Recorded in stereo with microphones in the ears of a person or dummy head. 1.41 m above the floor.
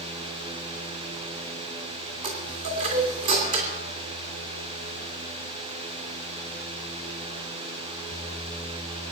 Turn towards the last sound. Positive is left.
turn(degrees=-45)  # may be behind; listen again after turning